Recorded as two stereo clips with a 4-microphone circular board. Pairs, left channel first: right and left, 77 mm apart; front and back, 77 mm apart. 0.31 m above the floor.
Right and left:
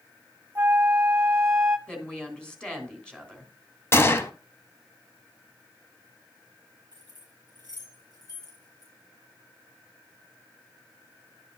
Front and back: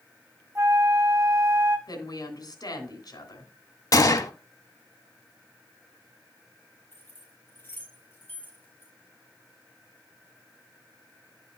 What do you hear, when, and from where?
0.6 s a flute: 145° left, 1.1 m
1.9 s a woman speaking: 15° right, 2.5 m
3.9 s a gunshot: 35° right, 0.8 m
6.9 s keys jangling: 70° right, 5.5 m